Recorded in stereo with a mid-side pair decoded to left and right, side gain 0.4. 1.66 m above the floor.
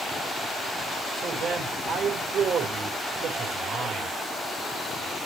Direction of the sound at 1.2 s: 70° right.